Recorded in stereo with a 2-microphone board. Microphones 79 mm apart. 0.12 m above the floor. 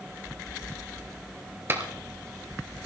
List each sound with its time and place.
1.7 s a clap: 30° right (ahead or behind), 1.7 m